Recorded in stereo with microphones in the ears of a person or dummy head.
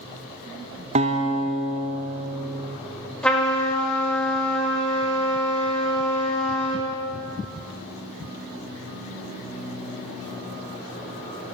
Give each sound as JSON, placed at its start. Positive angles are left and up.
{"t": 0.9, "sound": "a guitar", "side_deg": -35, "distance_m": 0.5}
{"t": 3.2, "sound": "a trumpet", "side_deg": 0, "distance_m": 1.5}